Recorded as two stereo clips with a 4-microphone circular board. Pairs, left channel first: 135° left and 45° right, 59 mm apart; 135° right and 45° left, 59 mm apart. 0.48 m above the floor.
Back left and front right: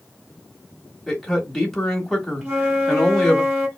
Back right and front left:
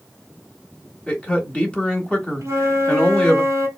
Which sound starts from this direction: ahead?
A flute, at 2.4 s.